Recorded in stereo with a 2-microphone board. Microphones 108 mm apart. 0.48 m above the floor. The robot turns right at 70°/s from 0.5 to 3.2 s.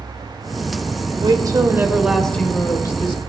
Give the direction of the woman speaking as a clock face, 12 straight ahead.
2 o'clock.